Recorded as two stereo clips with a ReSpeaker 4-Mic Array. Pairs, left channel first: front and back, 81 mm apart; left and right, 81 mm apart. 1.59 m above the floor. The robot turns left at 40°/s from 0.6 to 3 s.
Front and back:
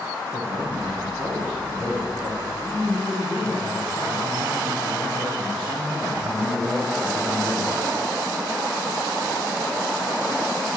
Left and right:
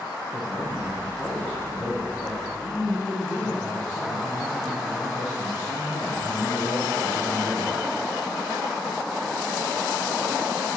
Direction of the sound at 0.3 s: 175° right.